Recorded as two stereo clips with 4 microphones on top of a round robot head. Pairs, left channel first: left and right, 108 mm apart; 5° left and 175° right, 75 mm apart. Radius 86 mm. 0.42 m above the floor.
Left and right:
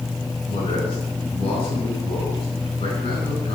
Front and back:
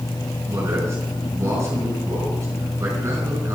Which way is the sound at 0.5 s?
135° left.